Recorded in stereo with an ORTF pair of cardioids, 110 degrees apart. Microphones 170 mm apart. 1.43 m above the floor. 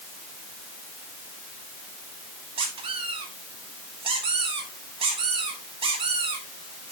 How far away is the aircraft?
No aircraft in this recording.